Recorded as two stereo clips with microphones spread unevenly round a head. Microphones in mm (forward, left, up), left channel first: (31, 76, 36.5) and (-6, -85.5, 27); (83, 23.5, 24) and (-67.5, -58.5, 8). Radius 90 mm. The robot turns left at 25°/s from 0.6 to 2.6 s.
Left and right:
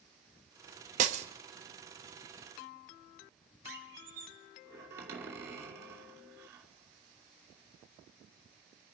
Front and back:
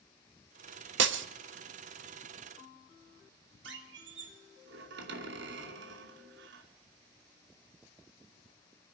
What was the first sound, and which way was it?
Breaking glass, 150° right.